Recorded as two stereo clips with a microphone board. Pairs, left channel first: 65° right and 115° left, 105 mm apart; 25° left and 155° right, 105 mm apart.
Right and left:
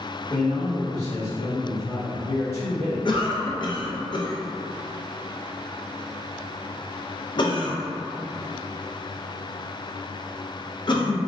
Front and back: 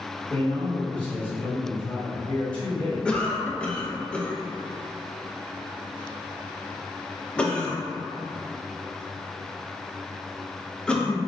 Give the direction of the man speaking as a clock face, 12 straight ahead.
2 o'clock.